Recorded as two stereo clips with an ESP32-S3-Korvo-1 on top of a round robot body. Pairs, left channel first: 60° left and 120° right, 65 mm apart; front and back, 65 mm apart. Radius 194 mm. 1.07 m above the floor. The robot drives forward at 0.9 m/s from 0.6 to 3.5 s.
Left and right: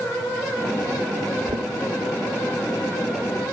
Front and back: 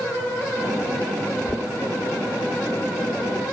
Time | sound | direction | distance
1.5 | knocking | 75° right | 0.7 m